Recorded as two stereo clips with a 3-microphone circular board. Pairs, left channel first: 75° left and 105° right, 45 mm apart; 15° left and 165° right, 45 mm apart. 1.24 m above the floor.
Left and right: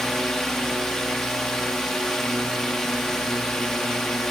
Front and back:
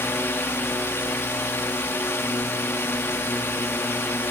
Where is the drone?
5° right.